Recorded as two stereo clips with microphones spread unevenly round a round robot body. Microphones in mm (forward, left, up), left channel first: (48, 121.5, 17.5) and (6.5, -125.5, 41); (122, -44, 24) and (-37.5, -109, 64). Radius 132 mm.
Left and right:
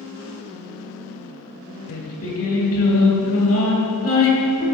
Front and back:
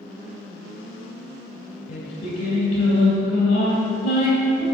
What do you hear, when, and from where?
1.9 s singing: 65° left, 2 m